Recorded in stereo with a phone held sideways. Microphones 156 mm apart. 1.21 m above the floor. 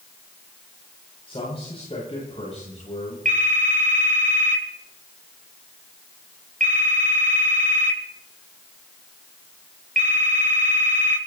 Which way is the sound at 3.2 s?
55° right (ahead or behind).